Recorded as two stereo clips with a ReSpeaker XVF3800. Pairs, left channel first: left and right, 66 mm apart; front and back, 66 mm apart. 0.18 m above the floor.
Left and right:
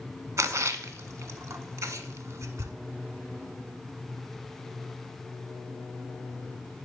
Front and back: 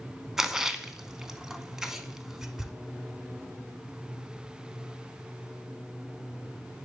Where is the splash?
100° right, 0.5 m.